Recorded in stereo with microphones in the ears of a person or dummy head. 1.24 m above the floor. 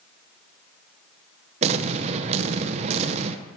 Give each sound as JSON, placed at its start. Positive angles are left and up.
{"t": 1.6, "sound": "an explosion", "side_deg": -40, "distance_m": 0.7}